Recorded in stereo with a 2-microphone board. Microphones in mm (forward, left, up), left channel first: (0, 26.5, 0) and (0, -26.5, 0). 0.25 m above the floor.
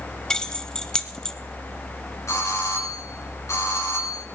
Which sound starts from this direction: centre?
Keys jangling, at 0.3 s.